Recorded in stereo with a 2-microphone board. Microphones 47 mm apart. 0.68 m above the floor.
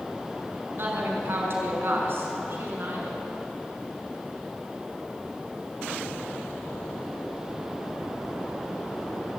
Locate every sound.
0.8 s a woman speaking: 50° right (ahead or behind), 5.5 m; by 3.2 s 55° right (ahead or behind), 6.5 m